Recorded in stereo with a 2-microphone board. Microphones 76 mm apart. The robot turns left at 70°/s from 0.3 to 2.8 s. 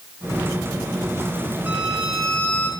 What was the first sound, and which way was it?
A violin, 150° right.